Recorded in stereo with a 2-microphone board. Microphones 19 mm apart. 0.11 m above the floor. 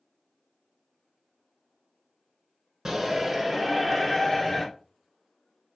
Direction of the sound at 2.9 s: 20° right (ahead or behind).